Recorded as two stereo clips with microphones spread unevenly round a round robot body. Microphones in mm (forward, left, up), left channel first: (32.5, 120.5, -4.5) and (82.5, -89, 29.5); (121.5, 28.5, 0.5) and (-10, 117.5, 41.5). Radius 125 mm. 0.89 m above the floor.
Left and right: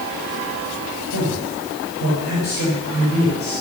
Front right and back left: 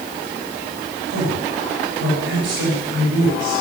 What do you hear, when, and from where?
1.1 s a man speaking: 155° left, 5 m